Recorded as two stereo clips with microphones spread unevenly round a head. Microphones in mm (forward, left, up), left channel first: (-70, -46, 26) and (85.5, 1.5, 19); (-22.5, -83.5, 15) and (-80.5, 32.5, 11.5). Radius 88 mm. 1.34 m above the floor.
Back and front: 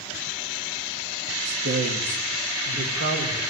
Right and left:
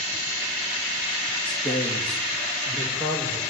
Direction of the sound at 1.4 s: Straight ahead.